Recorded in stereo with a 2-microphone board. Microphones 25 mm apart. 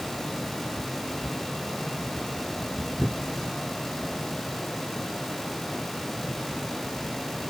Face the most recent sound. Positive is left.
No sound to turn to.